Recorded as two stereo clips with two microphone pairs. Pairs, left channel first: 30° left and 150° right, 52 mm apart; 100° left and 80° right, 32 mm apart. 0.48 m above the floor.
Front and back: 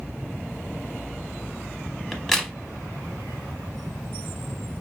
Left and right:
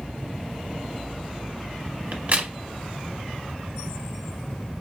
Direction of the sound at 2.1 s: 50° right.